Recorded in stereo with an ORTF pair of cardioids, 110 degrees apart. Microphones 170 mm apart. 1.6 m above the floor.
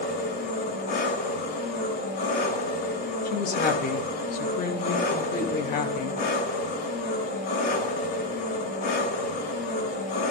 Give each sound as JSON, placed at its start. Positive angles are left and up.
{"t": 0.0, "sound": "an engine running", "azimuth_deg": 70, "distance_m": 8.0}
{"t": 3.2, "sound": "a woman speaking", "azimuth_deg": 60, "distance_m": 3.0}